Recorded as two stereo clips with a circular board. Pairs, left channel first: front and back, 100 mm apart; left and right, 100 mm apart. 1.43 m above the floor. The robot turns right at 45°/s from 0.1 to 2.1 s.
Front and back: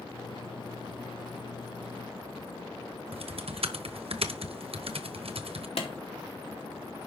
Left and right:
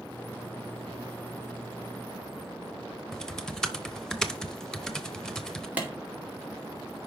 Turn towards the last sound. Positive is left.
turn(degrees=-15)